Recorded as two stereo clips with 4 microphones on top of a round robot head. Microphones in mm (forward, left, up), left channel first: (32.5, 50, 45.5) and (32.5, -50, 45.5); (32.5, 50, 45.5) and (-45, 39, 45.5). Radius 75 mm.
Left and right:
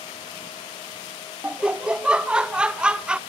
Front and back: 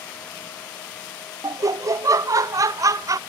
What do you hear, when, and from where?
1.4 s laughter: 165° right, 0.5 m